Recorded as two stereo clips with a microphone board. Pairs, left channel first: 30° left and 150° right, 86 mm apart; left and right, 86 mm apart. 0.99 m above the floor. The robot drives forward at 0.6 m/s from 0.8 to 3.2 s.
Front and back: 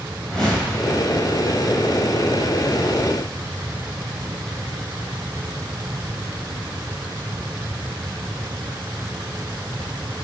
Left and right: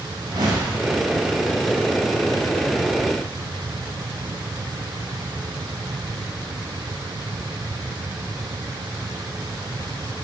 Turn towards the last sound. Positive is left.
turn(degrees=-80)